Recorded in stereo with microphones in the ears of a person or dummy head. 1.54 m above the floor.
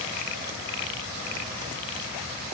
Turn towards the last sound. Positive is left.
No sound to turn to.